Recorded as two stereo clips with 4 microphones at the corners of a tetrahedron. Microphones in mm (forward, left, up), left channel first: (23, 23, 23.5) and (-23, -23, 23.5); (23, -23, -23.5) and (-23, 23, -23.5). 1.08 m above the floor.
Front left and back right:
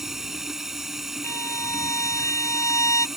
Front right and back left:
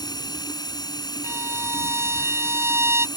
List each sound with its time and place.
0.0 s running water: 50° right
1.2 s a violin: 85° left